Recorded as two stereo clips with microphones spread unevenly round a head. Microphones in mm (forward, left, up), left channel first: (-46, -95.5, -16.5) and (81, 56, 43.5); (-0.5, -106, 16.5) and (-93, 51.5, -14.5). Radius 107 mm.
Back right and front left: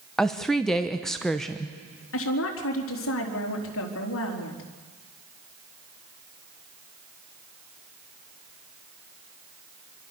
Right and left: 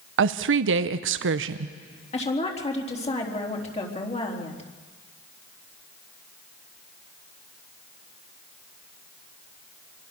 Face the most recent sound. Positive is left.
turn(degrees=-115)